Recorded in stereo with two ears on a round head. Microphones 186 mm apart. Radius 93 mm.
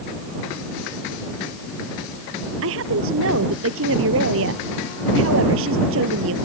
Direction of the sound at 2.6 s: 70° right (ahead or behind).